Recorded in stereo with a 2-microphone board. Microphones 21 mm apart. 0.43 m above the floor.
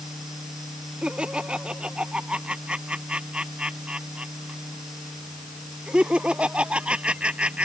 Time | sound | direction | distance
1.0 | laughter | 65° right (ahead or behind) | ?